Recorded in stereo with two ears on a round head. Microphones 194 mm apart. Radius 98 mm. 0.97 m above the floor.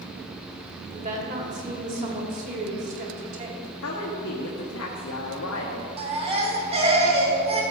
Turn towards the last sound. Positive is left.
turn(degrees=-30)  # may be behind; listen again after turning